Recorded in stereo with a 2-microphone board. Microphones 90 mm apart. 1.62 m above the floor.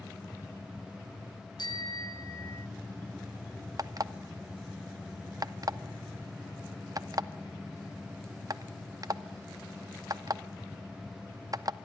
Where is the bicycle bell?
55° left (ahead or behind), 2 m; by 2.7 s 30° left (ahead or behind), 1.3 m.